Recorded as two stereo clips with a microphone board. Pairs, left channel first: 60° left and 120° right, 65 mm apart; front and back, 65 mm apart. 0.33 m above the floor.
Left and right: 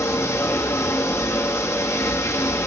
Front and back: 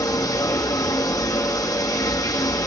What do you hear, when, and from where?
0.0 s running water: 20° left, 3 m